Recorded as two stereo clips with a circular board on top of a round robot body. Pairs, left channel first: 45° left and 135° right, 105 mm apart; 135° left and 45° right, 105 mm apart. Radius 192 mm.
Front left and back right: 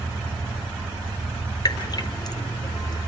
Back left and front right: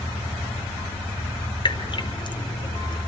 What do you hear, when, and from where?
1.6 s dripping: 95° left, 1.9 m